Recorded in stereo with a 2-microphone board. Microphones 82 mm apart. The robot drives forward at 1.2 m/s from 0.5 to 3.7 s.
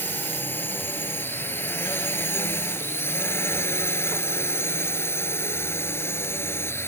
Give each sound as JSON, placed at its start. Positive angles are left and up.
{"t": 0.0, "sound": "a drone", "side_deg": 25}